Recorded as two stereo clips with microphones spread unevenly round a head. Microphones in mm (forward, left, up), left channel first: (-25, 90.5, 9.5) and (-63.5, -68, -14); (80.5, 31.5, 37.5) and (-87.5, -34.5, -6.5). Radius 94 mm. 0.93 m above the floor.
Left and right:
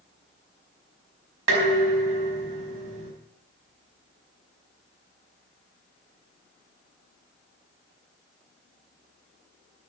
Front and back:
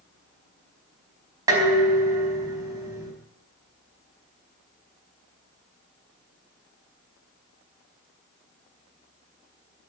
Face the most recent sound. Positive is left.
turn(degrees=-85)